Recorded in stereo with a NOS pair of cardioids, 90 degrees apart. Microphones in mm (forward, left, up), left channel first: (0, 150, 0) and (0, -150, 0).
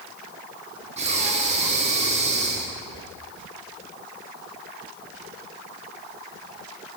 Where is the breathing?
25° right, 1.4 m.